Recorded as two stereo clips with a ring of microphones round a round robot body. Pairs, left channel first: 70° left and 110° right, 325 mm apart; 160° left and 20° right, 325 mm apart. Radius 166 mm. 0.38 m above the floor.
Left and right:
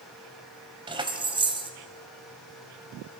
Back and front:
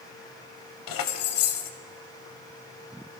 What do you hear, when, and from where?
0.9 s keys jangling: 175° left, 1.5 m